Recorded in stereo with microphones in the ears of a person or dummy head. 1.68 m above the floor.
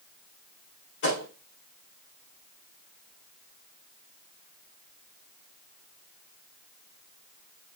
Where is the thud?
60° left (ahead or behind), 4 m.